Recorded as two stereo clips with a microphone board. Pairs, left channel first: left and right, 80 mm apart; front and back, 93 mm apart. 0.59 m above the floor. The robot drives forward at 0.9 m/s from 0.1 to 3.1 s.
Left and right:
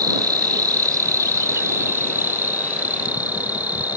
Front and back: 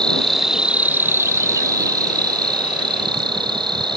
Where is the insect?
80° right; by 4.0 s 155° right.